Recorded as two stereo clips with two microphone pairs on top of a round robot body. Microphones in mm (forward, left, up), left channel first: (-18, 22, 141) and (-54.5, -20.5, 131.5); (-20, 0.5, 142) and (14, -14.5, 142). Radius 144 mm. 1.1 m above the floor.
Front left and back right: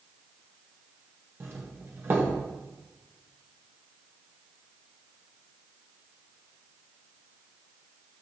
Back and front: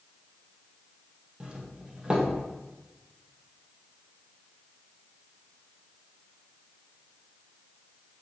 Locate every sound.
1.4 s a doorbell: 90° right, 1.7 m